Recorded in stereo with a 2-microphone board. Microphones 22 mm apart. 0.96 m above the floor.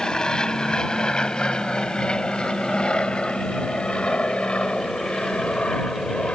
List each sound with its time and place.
0.0 s an aircraft: 30° left (ahead or behind); by 6.3 s 65° left (ahead or behind)